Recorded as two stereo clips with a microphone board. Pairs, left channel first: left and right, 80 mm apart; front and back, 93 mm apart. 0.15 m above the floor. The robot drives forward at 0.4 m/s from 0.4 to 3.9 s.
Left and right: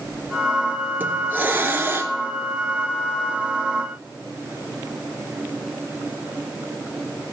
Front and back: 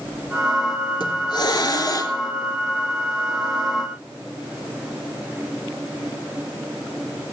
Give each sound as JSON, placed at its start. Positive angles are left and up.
{"t": 1.0, "sound": "a hiss", "azimuth_deg": -25, "distance_m": 1.5}